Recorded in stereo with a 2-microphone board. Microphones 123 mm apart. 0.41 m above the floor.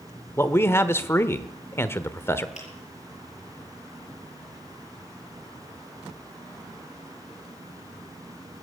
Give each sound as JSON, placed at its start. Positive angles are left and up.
{"t": 0.4, "sound": "a man speaking", "side_deg": 20, "distance_m": 0.8}
{"t": 2.5, "sound": "a finger snap", "side_deg": 80, "distance_m": 6.5}